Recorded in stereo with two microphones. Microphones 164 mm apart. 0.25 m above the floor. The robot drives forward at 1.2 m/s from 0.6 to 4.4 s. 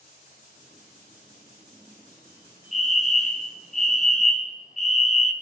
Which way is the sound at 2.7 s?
45° left (ahead or behind).